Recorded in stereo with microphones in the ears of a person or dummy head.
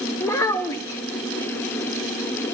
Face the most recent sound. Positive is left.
turn(degrees=15)  # may be behind; listen again after turning